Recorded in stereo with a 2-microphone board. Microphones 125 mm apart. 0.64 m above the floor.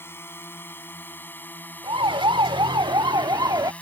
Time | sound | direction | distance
0.0 | a drone | 20° left (ahead or behind) | ?
1.8 | a siren | 45° right (ahead or behind) | ?